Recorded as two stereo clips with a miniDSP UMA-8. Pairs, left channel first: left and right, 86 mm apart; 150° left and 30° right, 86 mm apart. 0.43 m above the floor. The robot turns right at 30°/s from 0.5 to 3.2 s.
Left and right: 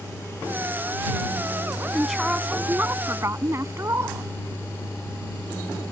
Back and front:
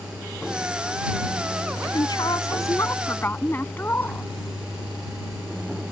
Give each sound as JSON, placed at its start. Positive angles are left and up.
{"t": 1.9, "sound": "a woman speaking", "azimuth_deg": 180}